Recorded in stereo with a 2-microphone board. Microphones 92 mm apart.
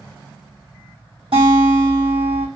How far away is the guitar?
About 2.5 m.